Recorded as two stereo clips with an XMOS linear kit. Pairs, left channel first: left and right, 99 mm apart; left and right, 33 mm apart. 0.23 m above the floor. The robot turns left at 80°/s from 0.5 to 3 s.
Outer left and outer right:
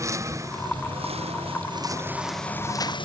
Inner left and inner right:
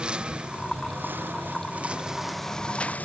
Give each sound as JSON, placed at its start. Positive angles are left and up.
{"t": 0.0, "sound": "a lawn mower", "side_deg": -30}